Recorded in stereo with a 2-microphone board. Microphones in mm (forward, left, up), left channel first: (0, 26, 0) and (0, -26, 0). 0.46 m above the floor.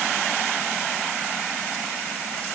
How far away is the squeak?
No squeak in this recording.